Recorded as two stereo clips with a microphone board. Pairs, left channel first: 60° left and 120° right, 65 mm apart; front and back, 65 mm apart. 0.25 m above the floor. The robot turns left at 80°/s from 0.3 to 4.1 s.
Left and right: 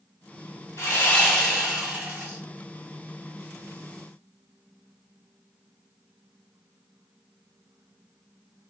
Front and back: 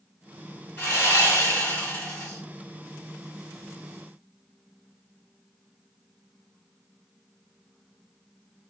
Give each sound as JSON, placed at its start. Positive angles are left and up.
{"t": 0.8, "sound": "sawing", "azimuth_deg": 40, "distance_m": 1.9}